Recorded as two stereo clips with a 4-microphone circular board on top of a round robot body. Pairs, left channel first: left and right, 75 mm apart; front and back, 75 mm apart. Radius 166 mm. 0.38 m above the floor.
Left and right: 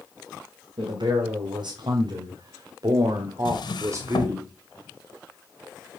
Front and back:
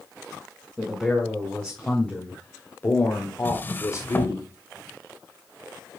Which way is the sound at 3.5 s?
65° left.